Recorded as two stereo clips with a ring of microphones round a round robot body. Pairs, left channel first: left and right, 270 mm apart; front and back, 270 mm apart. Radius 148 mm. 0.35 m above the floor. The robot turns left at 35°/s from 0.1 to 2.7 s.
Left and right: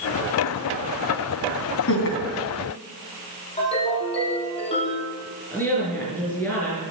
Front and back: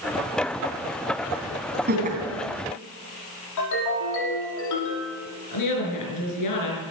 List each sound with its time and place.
1.9 s laughter: 130° left, 3.5 m; by 2.2 s 120° left, 3.5 m
3.6 s a ringtone: 20° left, 6 m
5.5 s a woman speaking: 5° left, 5 m